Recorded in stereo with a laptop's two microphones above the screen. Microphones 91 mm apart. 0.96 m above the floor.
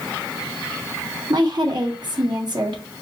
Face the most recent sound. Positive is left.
turn(degrees=-50)  # may be behind; listen again after turning